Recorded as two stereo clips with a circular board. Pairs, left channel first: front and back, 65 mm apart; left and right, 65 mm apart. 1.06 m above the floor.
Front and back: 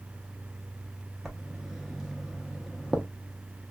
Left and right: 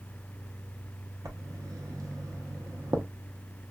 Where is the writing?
95° right, 0.7 m.